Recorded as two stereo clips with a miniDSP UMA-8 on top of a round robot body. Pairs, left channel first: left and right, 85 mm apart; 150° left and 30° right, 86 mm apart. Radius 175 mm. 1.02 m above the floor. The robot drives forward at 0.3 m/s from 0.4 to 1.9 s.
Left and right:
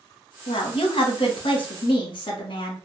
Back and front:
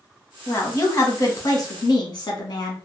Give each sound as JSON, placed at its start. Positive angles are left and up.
{"t": 0.5, "sound": "a woman speaking", "azimuth_deg": 90, "distance_m": 1.0}